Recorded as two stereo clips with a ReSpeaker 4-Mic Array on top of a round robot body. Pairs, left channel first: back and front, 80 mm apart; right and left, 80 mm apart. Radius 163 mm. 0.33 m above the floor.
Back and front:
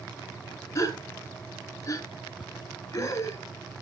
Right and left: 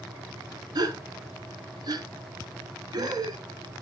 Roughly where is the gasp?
Behind left.